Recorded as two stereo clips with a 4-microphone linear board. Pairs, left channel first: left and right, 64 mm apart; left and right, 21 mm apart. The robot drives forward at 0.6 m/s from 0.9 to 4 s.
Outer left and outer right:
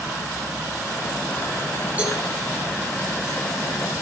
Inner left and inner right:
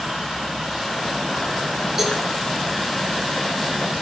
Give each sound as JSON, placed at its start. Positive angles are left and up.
{"t": 2.0, "sound": "a cowbell", "side_deg": -25, "distance_m": 7.0}